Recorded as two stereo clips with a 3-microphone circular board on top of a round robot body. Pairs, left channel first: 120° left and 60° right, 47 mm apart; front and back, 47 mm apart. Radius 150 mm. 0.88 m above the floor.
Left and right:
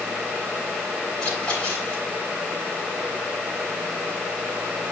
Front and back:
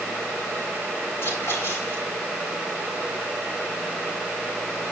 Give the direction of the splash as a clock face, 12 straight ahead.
10 o'clock.